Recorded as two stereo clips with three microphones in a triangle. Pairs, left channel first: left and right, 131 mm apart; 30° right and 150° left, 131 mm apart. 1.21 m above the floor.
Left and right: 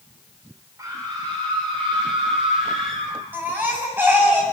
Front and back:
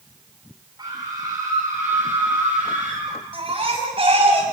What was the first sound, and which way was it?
A scream, 155° right.